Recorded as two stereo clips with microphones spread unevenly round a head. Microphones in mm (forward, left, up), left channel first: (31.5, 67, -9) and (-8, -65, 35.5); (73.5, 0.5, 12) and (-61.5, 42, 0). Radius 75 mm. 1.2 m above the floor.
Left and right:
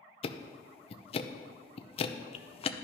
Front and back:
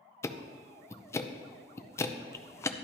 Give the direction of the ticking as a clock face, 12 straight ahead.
10 o'clock.